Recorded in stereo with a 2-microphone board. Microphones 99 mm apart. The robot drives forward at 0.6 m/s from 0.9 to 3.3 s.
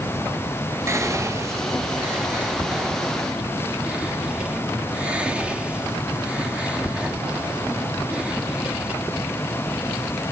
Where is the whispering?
25° right (ahead or behind), 0.6 m; by 8.9 s 10° right (ahead or behind), 1.4 m.